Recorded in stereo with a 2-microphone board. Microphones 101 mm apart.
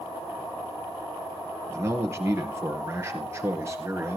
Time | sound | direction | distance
1.7 | a man speaking | 25° right (ahead or behind) | 2 m